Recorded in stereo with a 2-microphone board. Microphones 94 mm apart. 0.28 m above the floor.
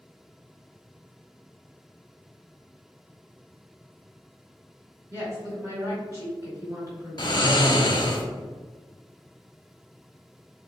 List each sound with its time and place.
5.1 s a woman speaking: 35° right (ahead or behind), 1.7 m
7.2 s snoring: 50° left (ahead or behind), 0.6 m